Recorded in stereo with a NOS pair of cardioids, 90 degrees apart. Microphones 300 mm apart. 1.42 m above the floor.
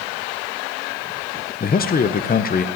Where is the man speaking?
30° left, 1.1 m.